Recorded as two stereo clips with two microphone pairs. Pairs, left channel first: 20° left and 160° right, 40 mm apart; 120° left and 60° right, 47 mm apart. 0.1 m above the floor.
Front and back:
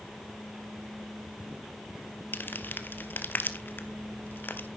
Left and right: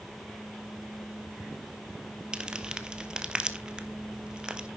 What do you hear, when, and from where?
2.3 s crumpling: straight ahead, 0.8 m